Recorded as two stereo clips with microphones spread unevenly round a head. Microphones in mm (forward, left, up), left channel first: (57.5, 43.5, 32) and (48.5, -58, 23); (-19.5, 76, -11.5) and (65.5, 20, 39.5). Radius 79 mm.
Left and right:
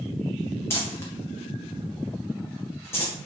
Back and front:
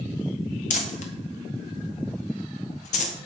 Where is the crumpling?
160° left, 1.4 m.